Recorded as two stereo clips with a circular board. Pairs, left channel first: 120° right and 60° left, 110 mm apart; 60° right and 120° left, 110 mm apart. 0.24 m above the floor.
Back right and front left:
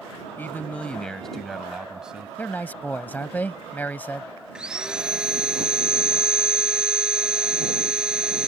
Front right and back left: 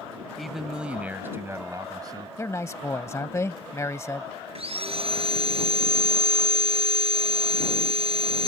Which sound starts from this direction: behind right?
A man speaking, at 0.4 s.